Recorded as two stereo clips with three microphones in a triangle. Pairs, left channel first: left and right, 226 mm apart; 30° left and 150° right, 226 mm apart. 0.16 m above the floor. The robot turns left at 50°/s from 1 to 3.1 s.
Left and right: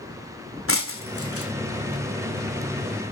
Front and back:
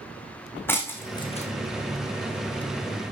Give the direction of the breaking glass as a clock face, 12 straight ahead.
8 o'clock.